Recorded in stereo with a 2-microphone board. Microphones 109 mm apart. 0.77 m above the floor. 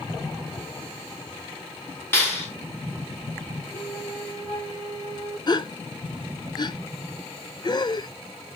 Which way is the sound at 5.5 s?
40° left (ahead or behind).